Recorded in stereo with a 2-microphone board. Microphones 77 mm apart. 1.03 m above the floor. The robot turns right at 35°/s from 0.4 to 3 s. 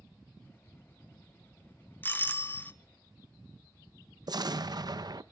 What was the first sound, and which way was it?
A doorbell, 25° left (ahead or behind).